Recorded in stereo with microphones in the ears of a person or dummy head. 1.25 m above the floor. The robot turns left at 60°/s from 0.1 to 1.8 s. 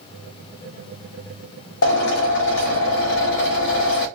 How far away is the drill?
About 1.5 m.